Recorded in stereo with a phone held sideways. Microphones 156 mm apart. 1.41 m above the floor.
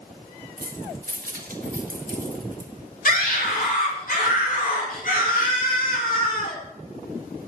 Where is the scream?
65° left (ahead or behind), 4.5 m.